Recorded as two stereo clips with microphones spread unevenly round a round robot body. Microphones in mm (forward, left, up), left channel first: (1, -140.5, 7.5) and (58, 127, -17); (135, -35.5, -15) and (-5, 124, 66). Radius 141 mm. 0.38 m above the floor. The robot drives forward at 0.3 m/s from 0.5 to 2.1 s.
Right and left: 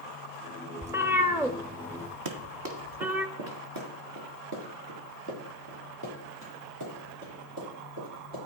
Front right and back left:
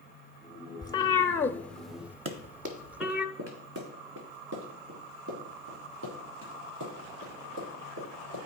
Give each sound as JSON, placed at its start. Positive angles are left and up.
{"t": 0.8, "sound": "a cat meowing", "azimuth_deg": 5, "distance_m": 0.7}
{"t": 2.2, "sound": "running footsteps", "azimuth_deg": 105, "distance_m": 1.0}